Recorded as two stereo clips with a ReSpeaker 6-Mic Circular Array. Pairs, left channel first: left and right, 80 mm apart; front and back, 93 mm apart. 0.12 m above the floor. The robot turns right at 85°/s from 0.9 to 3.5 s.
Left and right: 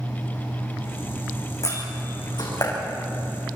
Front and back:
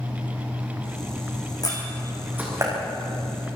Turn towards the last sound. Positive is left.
turn(degrees=-155)